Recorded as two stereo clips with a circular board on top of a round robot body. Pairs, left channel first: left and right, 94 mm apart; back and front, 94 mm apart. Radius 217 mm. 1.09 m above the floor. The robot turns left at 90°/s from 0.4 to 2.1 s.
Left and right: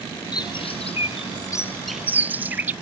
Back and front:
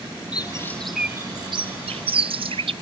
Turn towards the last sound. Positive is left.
turn(degrees=-20)